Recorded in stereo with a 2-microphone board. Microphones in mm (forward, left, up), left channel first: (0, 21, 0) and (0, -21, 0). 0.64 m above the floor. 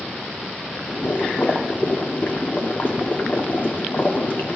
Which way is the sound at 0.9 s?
45° left (ahead or behind).